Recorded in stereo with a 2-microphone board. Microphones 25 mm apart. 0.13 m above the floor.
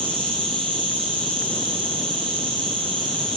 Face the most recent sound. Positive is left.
turn(degrees=50)  # may be behind; listen again after turning